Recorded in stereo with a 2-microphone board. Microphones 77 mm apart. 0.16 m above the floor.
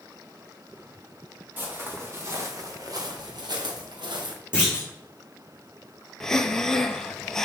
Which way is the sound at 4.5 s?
15° right (ahead or behind).